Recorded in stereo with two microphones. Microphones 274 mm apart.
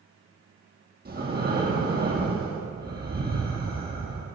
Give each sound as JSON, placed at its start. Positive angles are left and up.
{"t": 1.1, "sound": "breathing", "side_deg": -35, "distance_m": 2.5}